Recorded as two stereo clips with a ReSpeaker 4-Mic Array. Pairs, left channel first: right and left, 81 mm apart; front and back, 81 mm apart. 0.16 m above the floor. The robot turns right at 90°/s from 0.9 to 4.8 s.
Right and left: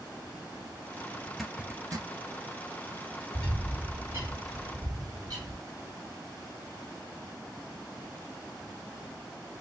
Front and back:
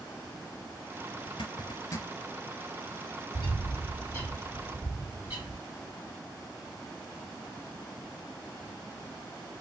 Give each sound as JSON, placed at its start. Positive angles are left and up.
{"t": 1.3, "sound": "a zipper", "azimuth_deg": -10, "distance_m": 0.6}
{"t": 3.3, "sound": "a bird", "azimuth_deg": -15, "distance_m": 2.5}